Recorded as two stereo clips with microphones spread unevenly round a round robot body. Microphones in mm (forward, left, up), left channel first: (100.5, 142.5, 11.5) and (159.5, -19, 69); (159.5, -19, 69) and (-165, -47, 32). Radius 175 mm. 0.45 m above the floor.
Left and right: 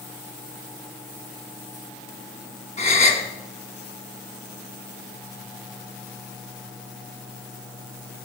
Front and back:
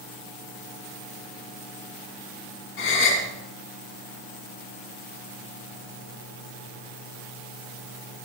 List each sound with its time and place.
2.8 s a gasp: 60° left, 2.5 m